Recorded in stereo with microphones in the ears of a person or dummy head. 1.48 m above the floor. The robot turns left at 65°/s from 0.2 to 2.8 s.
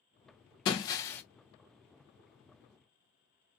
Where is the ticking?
No ticking in this recording.